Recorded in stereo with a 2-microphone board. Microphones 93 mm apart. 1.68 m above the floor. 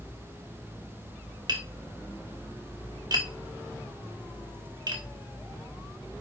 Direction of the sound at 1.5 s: 50° right (ahead or behind).